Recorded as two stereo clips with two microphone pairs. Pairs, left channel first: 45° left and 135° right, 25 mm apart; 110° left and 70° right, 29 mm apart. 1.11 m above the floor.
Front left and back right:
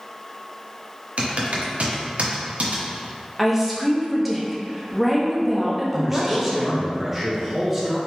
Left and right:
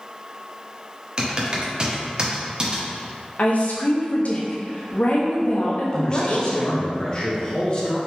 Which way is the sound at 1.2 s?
130° right.